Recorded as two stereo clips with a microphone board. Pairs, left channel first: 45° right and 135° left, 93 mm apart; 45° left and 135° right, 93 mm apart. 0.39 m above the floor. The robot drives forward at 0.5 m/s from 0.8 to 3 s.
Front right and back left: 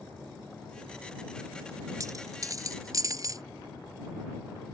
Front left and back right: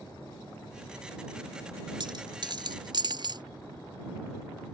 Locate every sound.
2.0 s a dropped coin: 170° right; by 3.4 s 175° right